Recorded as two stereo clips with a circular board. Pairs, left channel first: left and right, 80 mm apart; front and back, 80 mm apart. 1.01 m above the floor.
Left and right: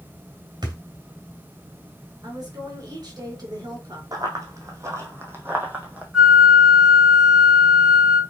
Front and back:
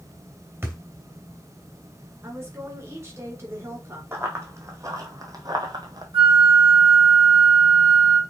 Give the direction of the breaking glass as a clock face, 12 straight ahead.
No breaking glass in this recording.